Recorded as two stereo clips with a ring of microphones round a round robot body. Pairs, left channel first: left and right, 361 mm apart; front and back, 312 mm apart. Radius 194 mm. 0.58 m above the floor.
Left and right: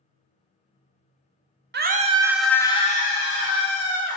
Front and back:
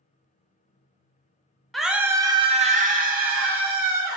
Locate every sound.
1.7 s a scream: 90° right, 1.2 m; by 4.2 s 125° left, 2 m